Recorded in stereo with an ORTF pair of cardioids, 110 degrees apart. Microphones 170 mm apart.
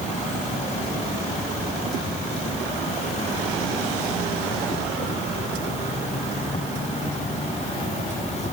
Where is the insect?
45° left.